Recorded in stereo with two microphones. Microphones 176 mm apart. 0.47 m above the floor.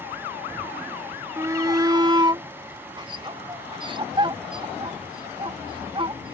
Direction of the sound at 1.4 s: 15° right (ahead or behind).